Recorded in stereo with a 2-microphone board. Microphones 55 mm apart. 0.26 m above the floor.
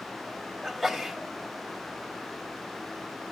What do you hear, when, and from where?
0.6 s a sneeze: centre (ahead or behind), 1.0 m